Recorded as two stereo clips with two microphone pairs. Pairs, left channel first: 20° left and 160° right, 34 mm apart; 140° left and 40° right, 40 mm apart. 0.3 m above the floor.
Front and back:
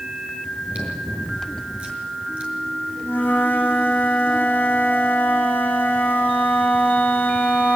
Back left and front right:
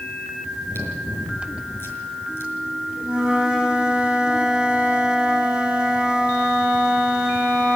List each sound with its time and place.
0.5 s chewing: 145° left, 5.5 m
3.0 s a flute: 35° left, 7.5 m